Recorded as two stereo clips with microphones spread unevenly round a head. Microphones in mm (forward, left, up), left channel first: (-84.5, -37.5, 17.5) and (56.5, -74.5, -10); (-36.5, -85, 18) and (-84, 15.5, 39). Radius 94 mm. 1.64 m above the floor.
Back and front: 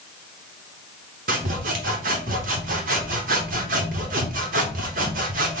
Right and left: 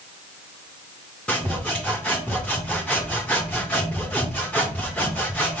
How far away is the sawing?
About 0.8 m.